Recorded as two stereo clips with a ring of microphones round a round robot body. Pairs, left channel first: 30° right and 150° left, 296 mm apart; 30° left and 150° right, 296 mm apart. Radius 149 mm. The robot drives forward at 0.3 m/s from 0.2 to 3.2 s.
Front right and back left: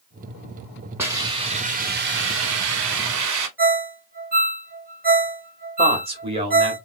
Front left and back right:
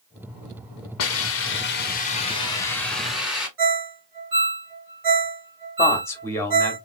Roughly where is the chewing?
I don't hear chewing.